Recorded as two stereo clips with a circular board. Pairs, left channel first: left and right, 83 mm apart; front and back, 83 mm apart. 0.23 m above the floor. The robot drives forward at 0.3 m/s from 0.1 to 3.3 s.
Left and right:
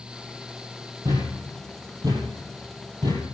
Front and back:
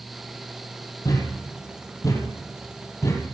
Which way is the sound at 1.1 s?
45° right.